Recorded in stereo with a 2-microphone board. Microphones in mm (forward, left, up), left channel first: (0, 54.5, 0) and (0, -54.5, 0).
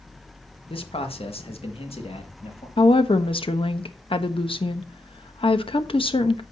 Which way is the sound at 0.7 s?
55° left (ahead or behind).